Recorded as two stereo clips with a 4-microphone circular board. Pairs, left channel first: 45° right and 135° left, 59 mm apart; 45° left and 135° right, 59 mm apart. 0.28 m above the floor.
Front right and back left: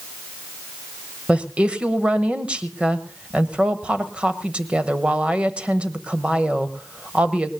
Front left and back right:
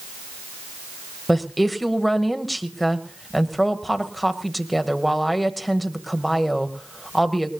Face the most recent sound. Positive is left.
turn(degrees=130)